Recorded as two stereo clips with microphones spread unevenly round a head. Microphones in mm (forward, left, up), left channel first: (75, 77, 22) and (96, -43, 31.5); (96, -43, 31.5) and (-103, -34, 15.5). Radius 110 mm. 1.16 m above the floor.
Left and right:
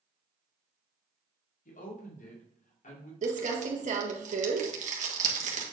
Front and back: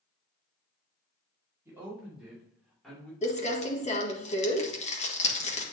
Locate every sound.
1.6 s a woman speaking: 95° left, 2.5 m; by 3.1 s 85° left, 3 m
3.2 s crumpling: 60° right, 1.7 m